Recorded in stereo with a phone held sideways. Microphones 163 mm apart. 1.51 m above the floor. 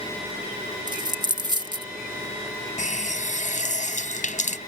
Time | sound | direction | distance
0.9 | a dropped coin | 25° right (ahead or behind) | ?
2.8 | a running tap | 50° left (ahead or behind) | ?